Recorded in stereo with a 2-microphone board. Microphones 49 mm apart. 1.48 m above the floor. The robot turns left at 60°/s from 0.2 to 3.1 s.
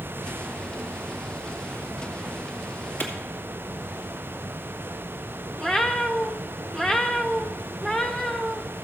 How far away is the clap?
About 2 m.